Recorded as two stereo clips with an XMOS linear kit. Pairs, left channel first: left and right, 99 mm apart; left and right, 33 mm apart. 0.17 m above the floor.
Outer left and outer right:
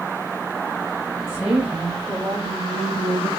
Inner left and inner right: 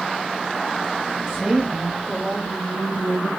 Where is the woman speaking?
15° right (ahead or behind), 5 m; by 3.3 s 30° right (ahead or behind), 4 m.